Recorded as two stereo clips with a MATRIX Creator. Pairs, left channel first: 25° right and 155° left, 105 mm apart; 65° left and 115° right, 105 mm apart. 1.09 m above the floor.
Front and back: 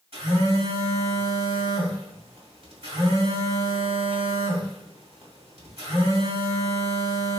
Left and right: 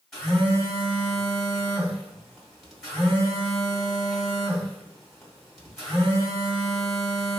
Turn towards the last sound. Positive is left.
turn(degrees=155)